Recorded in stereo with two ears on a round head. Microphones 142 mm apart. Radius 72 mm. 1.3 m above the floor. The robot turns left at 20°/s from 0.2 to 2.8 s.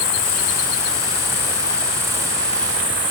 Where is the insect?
40° left, 2.0 m; by 3.1 s 15° right, 2.0 m.